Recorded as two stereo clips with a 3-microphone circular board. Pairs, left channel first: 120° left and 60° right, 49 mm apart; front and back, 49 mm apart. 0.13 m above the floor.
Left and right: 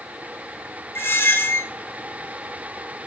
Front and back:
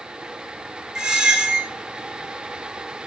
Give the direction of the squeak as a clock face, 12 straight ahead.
8 o'clock.